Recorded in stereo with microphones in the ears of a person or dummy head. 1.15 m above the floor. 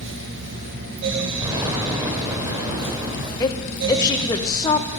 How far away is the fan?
About 0.9 m.